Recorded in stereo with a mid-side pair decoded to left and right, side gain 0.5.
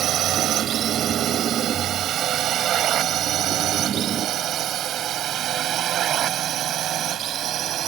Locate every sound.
0.0 s a drone: 65° right